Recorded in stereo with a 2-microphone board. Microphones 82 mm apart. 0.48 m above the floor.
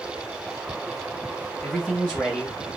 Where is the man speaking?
5° right (ahead or behind), 2 m; by 2.8 s centre (ahead or behind), 1.4 m.